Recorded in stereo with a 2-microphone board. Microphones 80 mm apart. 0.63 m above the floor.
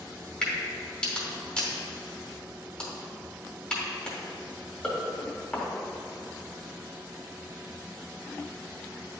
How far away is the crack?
About 1.9 m.